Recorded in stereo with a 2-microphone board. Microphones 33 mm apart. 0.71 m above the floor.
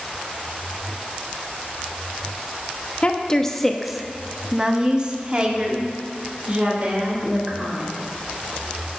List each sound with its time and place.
3.0 s a woman speaking: 30° left (ahead or behind), 0.9 m; by 7.9 s 40° right (ahead or behind), 3 m